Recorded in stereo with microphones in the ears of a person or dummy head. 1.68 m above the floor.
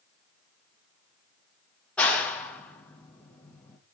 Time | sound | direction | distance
2.0 | a clap | 5° left (ahead or behind) | 1.6 m